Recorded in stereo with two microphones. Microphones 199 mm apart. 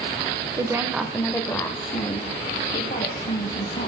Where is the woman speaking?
20° right (ahead or behind), 0.9 m; by 3.9 s 45° left (ahead or behind), 1.8 m.